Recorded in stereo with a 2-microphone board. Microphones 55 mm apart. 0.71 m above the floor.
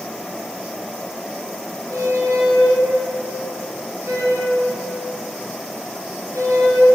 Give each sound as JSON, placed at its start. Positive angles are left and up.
{"t": 1.9, "sound": "a squeak", "side_deg": -65, "distance_m": 1.6}